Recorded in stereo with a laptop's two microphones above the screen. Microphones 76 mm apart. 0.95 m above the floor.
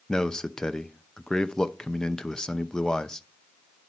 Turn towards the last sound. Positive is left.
turn(degrees=10)  # may be behind; listen again after turning